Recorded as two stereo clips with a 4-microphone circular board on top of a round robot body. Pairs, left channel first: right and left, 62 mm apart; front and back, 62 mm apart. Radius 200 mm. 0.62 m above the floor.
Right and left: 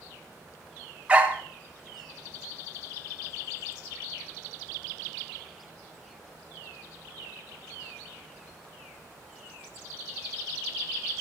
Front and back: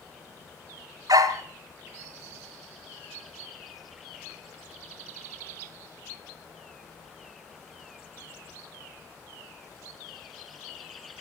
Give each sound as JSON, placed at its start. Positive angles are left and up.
{"t": 1.1, "sound": "a dog barking", "azimuth_deg": 160, "distance_m": 2.0}